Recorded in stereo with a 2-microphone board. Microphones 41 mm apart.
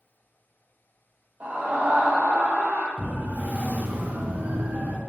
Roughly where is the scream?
Right.